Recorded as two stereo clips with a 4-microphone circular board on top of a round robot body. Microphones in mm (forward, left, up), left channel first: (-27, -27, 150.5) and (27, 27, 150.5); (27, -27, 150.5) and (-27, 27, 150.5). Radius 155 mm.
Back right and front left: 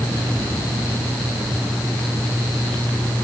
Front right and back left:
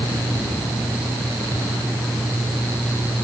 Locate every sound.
Only background noise.